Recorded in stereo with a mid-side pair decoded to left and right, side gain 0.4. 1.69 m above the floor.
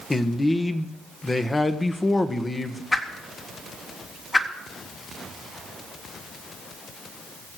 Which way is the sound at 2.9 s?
30° left.